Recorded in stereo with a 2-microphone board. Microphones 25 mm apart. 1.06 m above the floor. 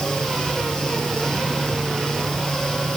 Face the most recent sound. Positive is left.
No sound to turn to.